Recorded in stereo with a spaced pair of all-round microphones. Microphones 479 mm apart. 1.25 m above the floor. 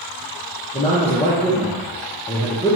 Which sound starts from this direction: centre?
A man speaking, at 0.7 s.